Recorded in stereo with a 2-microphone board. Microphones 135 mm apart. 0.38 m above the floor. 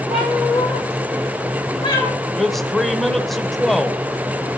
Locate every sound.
0.1 s a cat meowing: 55° left (ahead or behind), 4.5 m; by 2.1 s 30° left (ahead or behind), 3 m
2.4 s a man speaking: centre (ahead or behind), 1.0 m